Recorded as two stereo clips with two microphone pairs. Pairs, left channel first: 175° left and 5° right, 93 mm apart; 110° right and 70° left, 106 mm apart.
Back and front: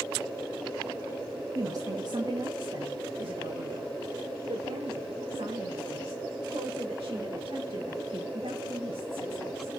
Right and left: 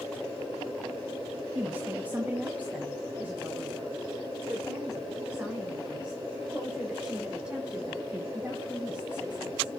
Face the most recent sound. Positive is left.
turn(degrees=-5)